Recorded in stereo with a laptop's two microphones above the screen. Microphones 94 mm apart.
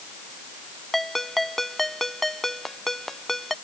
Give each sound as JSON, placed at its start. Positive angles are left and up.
{"t": 0.9, "sound": "a ringtone", "side_deg": 5}